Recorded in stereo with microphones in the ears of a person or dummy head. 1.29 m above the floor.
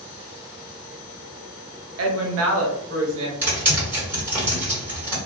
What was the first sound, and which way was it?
A woman speaking, 85° right.